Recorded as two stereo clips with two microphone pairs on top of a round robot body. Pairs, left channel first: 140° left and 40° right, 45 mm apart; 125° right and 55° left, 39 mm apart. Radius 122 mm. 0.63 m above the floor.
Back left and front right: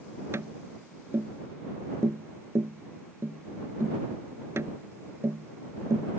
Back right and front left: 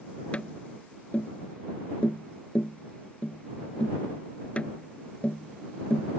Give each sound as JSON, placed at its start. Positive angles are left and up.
{"t": 0.3, "sound": "tapping", "azimuth_deg": -65}